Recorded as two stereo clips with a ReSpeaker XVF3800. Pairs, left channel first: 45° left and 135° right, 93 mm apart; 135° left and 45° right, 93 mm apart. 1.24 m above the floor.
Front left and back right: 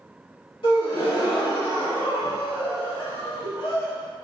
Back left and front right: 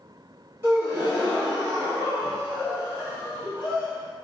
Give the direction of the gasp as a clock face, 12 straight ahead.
11 o'clock.